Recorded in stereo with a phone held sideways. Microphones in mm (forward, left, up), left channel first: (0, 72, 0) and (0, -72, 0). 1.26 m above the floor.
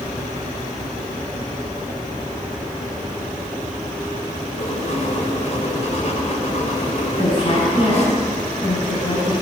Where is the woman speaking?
40° left (ahead or behind), 8 m.